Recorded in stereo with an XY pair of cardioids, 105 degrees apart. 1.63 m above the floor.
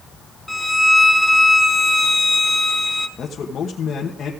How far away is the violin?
About 0.9 m.